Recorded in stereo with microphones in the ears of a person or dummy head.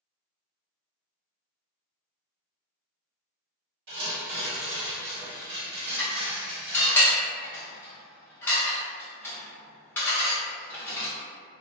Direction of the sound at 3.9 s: 60° right (ahead or behind).